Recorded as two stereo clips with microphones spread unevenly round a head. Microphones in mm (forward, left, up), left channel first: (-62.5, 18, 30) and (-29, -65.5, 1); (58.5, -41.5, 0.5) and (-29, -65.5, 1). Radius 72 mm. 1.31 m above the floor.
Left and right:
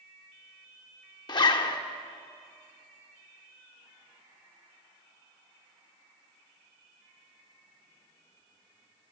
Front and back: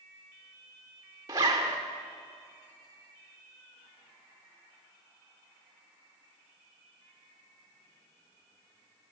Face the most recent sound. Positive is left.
turn(degrees=135)